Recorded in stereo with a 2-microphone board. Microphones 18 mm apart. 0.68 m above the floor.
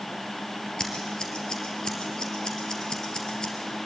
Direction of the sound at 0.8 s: 40° left (ahead or behind).